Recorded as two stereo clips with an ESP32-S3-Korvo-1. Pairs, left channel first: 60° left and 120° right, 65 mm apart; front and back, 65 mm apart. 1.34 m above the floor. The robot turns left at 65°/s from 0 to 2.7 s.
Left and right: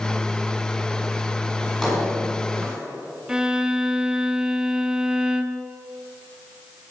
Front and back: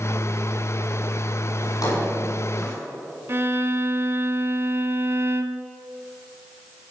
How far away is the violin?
About 0.9 m.